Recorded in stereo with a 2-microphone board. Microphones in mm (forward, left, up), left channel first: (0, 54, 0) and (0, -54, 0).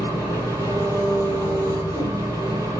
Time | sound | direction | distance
0.0 | an engine running | 30° right (ahead or behind) | 5.5 m